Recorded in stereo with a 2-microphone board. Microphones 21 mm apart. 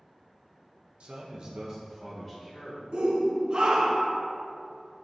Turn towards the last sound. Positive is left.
turn(degrees=-35)  # may be behind; listen again after turning